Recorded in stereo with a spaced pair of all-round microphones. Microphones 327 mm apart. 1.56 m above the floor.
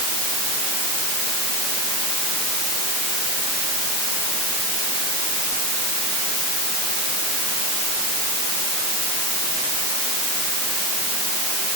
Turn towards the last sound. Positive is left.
No sound to turn to.